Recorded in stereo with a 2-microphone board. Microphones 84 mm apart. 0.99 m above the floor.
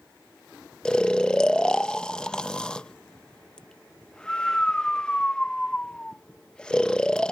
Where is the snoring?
10° left (ahead or behind).